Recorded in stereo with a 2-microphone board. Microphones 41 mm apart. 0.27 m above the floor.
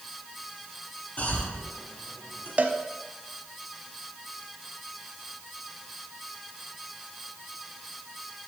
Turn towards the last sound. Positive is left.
turn(degrees=-40)  # may be behind; listen again after turning